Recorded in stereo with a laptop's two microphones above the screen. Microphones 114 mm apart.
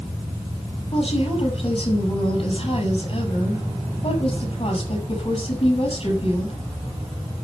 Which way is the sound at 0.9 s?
55° left (ahead or behind).